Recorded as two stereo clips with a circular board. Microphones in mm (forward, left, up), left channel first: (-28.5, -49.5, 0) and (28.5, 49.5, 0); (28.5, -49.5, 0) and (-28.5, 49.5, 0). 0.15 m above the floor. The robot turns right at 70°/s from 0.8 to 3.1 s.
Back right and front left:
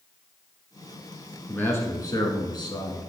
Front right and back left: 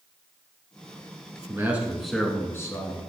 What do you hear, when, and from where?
1.5 s a man speaking: 170° left, 1.4 m; by 3.1 s 75° right, 1.4 m